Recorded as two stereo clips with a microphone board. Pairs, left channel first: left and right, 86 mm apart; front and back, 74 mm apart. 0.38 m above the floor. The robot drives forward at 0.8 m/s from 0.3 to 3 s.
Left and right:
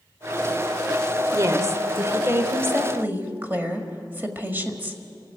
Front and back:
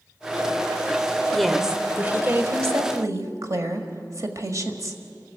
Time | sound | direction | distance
1.3 | a woman speaking | 80° right | 1.1 m